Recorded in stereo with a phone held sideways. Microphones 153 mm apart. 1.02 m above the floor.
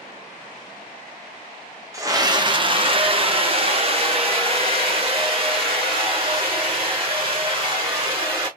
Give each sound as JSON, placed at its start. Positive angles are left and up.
{"t": 1.9, "sound": "a scream", "side_deg": -20, "distance_m": 0.7}